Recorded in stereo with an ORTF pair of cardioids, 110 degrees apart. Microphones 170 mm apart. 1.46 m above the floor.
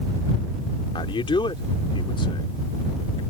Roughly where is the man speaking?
Ahead left.